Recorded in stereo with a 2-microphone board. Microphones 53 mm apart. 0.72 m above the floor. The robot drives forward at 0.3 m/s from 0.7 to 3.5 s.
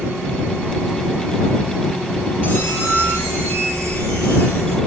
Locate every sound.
2.4 s a squeak: 35° left (ahead or behind), 1.1 m; by 4.8 s 30° left (ahead or behind), 1.3 m